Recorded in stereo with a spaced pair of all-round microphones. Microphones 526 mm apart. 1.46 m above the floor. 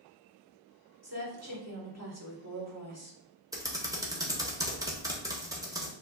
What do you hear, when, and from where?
1.0 s a woman speaking: 30° right (ahead or behind), 1.6 m
3.5 s typing on a keyboard: 5° right (ahead or behind), 0.8 m